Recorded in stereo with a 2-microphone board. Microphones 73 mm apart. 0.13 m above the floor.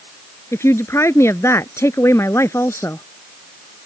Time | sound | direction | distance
0.5 | a woman speaking | 40° left (ahead or behind) | ?